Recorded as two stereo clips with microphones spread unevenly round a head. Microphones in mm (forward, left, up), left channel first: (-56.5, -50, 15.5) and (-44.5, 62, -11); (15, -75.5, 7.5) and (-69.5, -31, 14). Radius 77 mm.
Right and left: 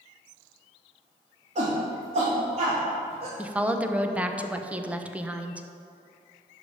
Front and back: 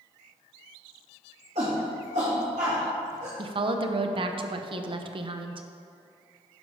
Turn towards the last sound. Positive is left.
turn(degrees=170)